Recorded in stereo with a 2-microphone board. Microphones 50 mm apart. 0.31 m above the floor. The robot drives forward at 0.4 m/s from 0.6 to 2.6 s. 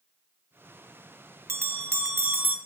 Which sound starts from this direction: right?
A bell, at 1.5 s.